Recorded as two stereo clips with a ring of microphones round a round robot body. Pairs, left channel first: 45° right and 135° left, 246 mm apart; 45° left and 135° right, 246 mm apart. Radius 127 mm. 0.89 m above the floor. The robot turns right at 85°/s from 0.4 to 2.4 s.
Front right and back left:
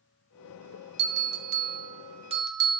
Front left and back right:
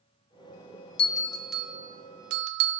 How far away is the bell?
About 0.8 m.